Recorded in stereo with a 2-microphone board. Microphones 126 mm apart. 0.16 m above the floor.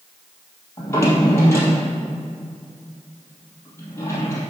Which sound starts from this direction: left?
A drawer, at 0.8 s.